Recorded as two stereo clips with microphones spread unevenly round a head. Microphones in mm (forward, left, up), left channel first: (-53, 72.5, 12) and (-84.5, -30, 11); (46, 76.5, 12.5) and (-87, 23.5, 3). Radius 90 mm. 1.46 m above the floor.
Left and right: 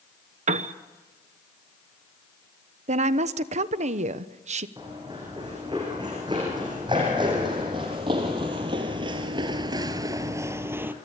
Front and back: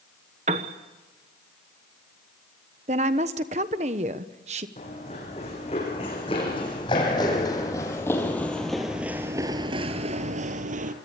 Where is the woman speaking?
105° right, 1.0 m.